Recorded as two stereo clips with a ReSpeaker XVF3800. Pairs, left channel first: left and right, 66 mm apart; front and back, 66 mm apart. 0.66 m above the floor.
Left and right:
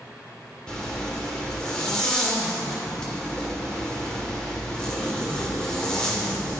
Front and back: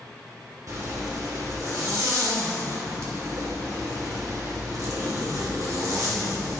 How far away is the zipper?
About 2.5 m.